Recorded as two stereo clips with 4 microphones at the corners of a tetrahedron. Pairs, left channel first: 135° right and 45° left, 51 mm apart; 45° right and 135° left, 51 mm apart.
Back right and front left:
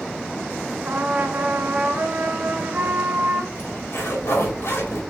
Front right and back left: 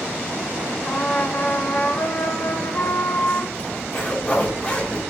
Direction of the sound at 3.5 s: 105° right.